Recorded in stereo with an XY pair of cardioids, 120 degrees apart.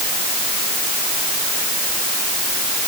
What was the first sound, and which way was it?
Only background noise.